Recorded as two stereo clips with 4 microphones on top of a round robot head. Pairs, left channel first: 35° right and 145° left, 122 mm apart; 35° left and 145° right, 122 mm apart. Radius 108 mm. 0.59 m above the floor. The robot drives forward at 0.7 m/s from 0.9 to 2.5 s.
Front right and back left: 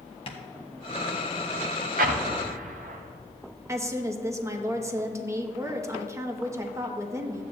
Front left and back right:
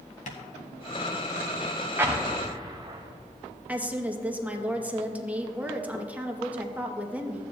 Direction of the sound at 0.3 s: 10° left.